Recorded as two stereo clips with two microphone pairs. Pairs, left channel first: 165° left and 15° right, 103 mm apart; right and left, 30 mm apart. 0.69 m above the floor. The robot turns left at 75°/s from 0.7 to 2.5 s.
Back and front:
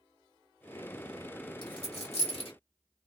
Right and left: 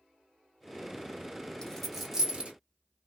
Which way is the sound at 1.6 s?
155° right.